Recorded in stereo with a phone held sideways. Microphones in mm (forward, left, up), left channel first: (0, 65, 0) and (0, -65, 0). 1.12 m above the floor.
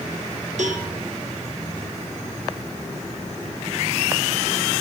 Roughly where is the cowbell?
Right.